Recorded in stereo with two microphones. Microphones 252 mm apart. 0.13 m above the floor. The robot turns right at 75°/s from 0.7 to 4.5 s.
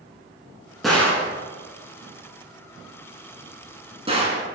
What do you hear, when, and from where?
0.8 s a gunshot: centre (ahead or behind), 0.9 m; by 4.4 s 25° right (ahead or behind), 0.9 m